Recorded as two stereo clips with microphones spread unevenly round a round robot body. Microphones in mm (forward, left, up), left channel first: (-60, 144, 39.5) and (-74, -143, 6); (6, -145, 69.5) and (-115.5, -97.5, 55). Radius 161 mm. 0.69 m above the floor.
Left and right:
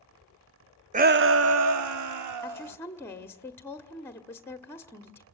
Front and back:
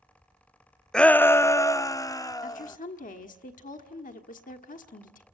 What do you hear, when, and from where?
0.9 s a shout: 115° right, 0.5 m; by 2.8 s 85° right, 1.6 m
2.4 s a woman speaking: straight ahead, 1.4 m